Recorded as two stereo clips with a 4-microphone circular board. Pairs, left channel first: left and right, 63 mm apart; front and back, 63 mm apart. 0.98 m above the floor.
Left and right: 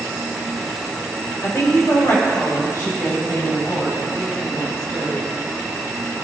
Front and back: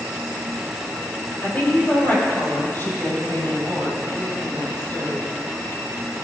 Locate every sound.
1.4 s a woman speaking: 55° left, 5 m; by 5.2 s 50° left, 8.5 m